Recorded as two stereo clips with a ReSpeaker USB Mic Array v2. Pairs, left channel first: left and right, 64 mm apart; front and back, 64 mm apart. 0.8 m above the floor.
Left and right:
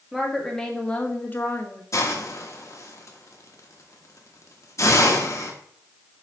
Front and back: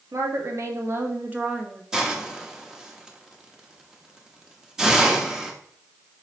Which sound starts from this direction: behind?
A woman speaking, at 0.1 s.